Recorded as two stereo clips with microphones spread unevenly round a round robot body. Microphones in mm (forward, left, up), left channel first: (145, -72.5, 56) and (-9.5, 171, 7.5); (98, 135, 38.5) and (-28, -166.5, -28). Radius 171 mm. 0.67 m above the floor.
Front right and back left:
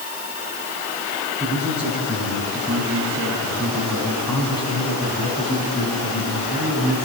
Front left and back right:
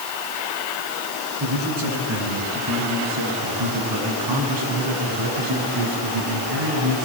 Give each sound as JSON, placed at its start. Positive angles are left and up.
{"t": 1.4, "sound": "a man speaking", "azimuth_deg": -155, "distance_m": 9.5}